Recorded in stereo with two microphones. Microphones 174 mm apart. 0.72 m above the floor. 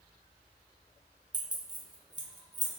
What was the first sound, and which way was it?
Keys jangling, 25° right (ahead or behind).